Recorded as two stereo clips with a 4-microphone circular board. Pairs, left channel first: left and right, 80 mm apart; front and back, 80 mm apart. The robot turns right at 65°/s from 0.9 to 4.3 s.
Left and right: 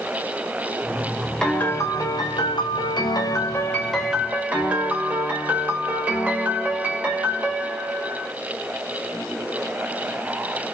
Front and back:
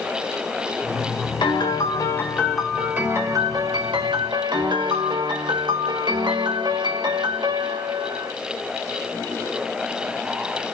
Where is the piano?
10° left, 1.8 m; by 8.3 s 160° right, 1.8 m.